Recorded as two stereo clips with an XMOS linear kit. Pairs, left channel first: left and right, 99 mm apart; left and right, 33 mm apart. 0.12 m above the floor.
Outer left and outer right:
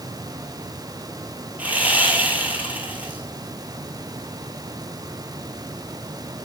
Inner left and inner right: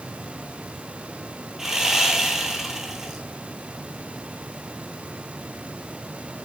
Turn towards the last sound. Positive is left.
turn(degrees=-15)  # may be behind; listen again after turning